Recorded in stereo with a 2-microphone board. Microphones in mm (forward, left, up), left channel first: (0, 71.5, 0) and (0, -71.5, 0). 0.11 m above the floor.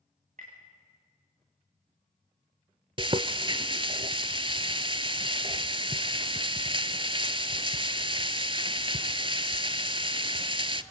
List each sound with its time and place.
0.4 s tapping: 65° right (ahead or behind), 6.5 m
3.0 s frying: 40° right (ahead or behind), 0.7 m